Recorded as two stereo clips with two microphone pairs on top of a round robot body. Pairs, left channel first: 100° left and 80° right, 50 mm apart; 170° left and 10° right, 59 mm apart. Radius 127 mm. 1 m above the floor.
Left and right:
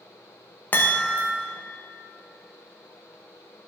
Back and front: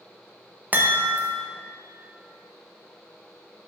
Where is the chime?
45° left, 0.8 m.